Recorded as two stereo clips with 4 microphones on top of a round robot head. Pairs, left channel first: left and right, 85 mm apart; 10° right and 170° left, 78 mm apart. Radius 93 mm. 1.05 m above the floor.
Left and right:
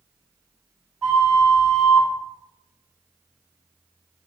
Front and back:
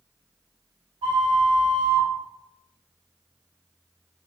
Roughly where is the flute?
Behind.